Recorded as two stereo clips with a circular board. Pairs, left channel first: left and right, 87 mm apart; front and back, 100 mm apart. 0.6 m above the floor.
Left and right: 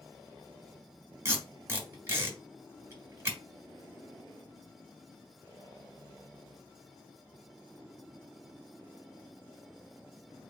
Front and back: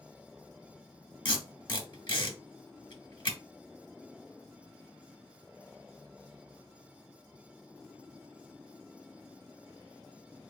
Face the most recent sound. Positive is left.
turn(degrees=-30)